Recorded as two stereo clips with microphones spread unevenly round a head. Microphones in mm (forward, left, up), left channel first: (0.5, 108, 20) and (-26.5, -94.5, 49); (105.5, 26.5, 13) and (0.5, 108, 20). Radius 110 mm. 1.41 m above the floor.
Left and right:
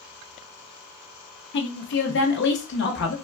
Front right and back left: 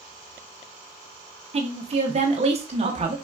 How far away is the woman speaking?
About 0.8 m.